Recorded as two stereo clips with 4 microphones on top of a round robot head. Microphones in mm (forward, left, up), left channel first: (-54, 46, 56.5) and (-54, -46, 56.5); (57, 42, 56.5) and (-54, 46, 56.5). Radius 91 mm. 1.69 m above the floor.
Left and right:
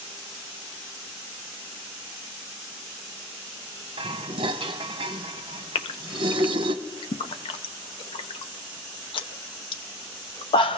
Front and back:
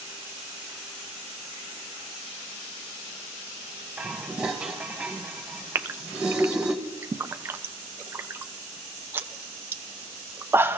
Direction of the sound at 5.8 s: 110° left.